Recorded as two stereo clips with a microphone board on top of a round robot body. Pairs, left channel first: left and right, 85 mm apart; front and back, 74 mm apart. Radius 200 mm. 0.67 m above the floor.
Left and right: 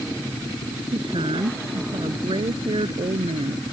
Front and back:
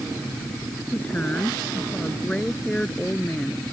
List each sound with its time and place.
0.9 s a woman speaking: 70° right; by 3.6 s 75° right